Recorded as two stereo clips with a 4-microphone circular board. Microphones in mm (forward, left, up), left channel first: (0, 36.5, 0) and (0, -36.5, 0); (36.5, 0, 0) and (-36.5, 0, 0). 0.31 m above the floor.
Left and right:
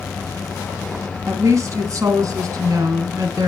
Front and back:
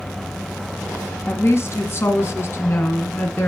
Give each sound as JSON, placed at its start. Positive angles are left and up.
{"t": 1.3, "sound": "a woman speaking", "azimuth_deg": -50, "distance_m": 2.5}